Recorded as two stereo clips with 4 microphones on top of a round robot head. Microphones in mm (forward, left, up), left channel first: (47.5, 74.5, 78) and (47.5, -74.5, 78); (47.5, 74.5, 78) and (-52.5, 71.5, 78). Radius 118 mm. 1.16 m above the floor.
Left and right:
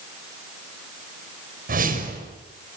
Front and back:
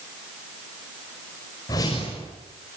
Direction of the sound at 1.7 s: 65° right.